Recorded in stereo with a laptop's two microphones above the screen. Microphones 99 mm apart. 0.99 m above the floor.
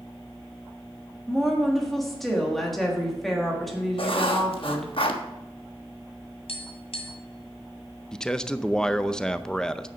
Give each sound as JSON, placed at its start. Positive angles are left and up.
{"t": 1.3, "sound": "a woman speaking", "side_deg": 0, "distance_m": 1.5}
{"t": 4.0, "sound": "writing", "side_deg": 60, "distance_m": 1.1}
{"t": 6.5, "sound": "tapping", "side_deg": 70, "distance_m": 1.7}
{"t": 8.1, "sound": "a man speaking", "side_deg": 5, "distance_m": 0.6}